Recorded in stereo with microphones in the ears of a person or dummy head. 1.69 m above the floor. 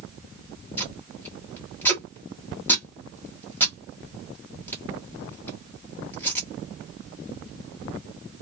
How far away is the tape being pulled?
About 1.1 m.